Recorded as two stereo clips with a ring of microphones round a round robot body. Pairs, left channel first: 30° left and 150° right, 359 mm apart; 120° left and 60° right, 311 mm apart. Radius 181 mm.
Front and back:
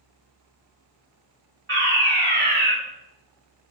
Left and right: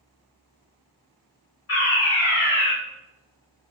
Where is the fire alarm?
160° left, 3.5 m.